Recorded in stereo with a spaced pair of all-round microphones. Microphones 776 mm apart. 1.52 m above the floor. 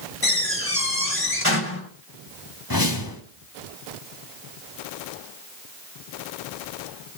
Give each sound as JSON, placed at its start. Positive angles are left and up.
{"t": 0.2, "sound": "a door slam", "side_deg": 15, "distance_m": 6.0}
{"t": 2.7, "sound": "a whoosh", "side_deg": 25, "distance_m": 2.0}